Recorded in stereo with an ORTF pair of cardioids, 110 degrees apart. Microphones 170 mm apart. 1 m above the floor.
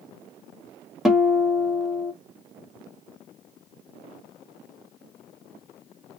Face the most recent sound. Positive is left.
turn(degrees=0)